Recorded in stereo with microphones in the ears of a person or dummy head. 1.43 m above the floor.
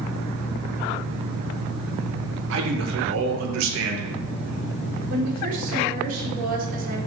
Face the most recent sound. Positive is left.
turn(degrees=-50)  # may be behind; listen again after turning